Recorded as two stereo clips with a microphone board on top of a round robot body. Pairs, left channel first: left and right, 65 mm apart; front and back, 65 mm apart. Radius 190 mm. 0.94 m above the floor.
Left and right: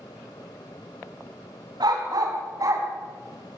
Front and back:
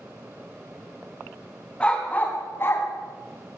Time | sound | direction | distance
1.8 | a dog barking | 75° right | 3.5 m